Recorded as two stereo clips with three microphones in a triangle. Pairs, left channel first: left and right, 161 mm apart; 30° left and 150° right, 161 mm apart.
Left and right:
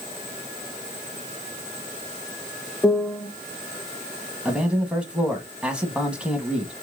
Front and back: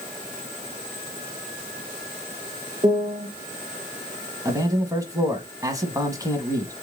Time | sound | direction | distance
2.8 | a piano | 170° left | 0.5 m
4.5 | a man speaking | 160° right | 1.0 m